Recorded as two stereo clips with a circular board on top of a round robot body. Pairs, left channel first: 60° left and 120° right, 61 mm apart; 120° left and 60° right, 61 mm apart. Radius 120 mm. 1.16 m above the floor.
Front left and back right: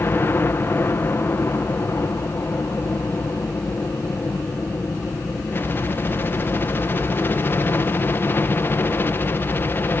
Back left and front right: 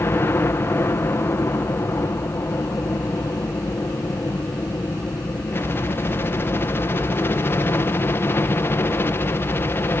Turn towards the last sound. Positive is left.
turn(degrees=90)